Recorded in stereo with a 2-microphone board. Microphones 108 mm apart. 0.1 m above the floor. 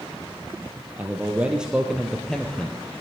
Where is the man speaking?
15° right (ahead or behind), 3 m; by 2.8 s 15° left (ahead or behind), 2 m.